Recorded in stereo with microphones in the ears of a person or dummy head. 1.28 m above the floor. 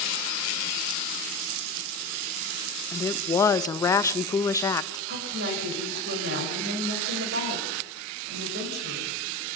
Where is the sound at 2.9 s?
20° left (ahead or behind), 0.8 m.